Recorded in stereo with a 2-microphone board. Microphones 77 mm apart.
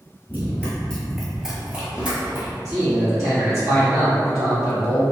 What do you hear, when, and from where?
0.3 s running footsteps: 25° left (ahead or behind), 0.9 m; by 2.5 s 25° right (ahead or behind), 1.2 m
2.6 s a man speaking: 40° right (ahead or behind), 1.4 m